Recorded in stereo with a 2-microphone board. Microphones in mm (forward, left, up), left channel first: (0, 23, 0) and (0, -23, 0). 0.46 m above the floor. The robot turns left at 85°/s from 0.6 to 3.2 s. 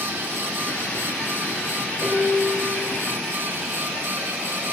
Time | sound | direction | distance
2.0 | dishes clattering | 25° left | 8.5 m